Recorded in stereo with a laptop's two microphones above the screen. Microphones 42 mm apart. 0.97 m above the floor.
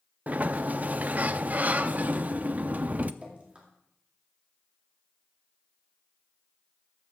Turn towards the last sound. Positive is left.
turn(degrees=-30)  # may be behind; listen again after turning